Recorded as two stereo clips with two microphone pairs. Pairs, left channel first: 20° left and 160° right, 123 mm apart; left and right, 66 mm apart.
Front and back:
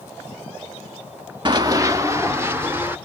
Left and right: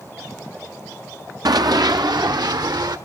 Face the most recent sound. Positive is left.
turn(degrees=-85)